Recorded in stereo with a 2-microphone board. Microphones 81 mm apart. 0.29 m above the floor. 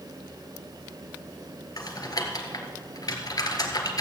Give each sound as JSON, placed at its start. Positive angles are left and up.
{"t": 1.8, "sound": "typing on a keyboard", "side_deg": 55, "distance_m": 1.7}